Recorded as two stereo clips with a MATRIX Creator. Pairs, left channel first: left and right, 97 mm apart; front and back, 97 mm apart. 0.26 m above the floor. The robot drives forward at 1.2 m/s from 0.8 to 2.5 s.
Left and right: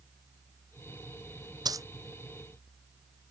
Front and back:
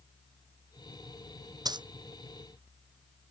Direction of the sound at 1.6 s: 135° right.